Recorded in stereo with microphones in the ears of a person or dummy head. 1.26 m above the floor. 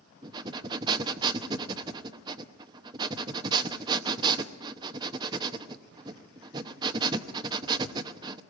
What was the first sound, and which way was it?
Breathing, 25° right (ahead or behind).